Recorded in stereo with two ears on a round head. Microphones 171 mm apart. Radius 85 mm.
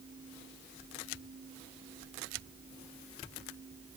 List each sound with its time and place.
Only background noise.